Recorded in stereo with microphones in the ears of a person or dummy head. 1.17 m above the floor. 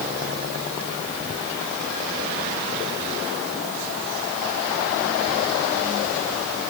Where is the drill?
No drill in this recording.